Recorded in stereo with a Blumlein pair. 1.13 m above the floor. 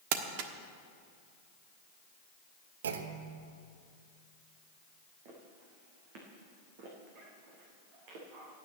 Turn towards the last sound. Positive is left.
turn(degrees=-45)